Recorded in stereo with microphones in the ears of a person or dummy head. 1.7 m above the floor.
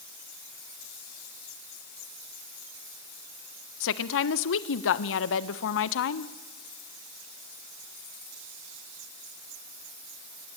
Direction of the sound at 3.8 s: 70° left (ahead or behind).